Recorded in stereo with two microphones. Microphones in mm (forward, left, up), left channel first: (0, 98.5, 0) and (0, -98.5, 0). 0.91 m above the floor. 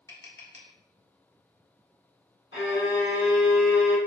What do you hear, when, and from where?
0.1 s tapping: 65° left (ahead or behind), 0.9 m
2.5 s a violin: 85° left, 1.9 m